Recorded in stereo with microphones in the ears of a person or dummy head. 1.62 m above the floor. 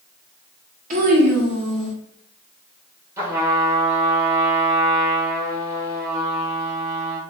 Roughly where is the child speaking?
Right.